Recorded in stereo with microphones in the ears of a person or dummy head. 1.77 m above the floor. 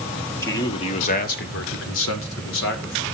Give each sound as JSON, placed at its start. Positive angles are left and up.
{"t": 0.4, "sound": "a man speaking", "side_deg": 20, "distance_m": 1.6}